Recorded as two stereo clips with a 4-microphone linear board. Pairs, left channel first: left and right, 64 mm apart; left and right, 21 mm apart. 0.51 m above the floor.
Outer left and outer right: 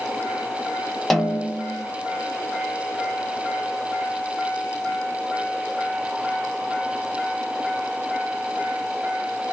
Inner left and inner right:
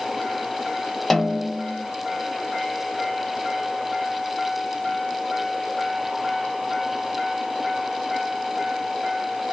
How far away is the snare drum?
About 0.7 m.